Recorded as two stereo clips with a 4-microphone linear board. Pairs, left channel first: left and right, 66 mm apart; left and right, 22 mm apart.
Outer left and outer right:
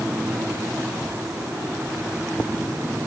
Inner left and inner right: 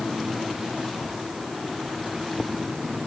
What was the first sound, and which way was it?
Only background noise.